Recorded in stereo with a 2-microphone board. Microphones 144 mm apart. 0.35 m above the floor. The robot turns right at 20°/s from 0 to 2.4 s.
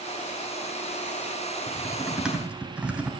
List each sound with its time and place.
1.7 s typing on a keyboard: 5° left (ahead or behind), 3 m; by 3.1 s 10° right (ahead or behind), 3 m